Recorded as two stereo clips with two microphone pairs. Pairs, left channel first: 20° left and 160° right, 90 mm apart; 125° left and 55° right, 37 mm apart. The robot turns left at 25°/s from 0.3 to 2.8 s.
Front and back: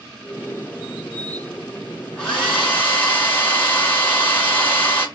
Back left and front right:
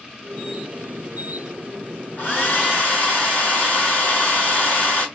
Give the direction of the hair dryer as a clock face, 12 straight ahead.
9 o'clock.